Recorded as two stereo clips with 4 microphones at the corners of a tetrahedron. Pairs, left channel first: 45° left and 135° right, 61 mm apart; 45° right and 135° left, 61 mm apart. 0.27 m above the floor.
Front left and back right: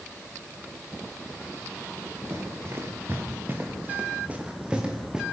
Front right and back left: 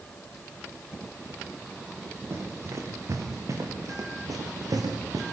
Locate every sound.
2.3 s running footsteps: straight behind, 5 m; by 5.2 s 145° left, 4.5 m